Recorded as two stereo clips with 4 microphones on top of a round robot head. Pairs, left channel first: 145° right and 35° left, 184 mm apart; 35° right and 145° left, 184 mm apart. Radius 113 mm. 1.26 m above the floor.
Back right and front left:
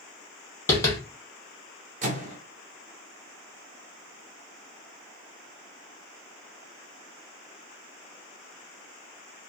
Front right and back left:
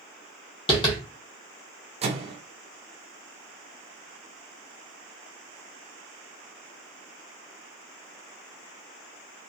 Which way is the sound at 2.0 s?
85° left.